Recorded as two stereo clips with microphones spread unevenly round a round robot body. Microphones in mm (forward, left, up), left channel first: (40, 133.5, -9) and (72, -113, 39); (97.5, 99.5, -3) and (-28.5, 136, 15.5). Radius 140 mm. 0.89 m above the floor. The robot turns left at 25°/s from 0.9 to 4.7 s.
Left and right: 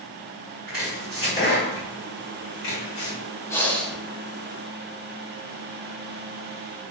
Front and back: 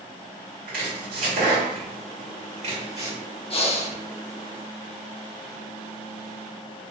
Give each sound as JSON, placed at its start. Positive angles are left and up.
{"t": 0.7, "sound": "chopping", "azimuth_deg": 175, "distance_m": 2.0}
{"t": 3.5, "sound": "breathing", "azimuth_deg": 25, "distance_m": 0.8}